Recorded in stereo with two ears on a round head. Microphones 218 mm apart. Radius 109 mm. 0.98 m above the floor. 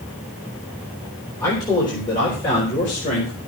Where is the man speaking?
15° left (ahead or behind), 4 m; by 3.4 s 35° left (ahead or behind), 4 m.